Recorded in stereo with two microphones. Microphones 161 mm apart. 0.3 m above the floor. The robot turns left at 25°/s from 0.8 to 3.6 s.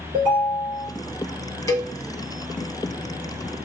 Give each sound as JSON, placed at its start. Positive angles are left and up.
{"t": 0.1, "sound": "a ringtone", "side_deg": -65, "distance_m": 2.5}
{"t": 1.7, "sound": "a cowbell", "side_deg": 20, "distance_m": 0.7}